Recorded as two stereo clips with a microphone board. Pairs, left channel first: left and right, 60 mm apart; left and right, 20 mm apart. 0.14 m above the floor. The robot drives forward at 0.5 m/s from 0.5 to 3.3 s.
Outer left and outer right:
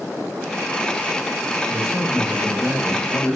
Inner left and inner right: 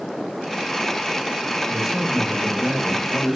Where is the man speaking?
5° left (ahead or behind), 1.7 m; by 3.4 s centre (ahead or behind), 2 m.